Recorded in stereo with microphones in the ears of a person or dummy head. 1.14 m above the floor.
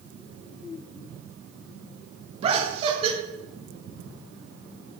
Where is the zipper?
I don't hear a zipper.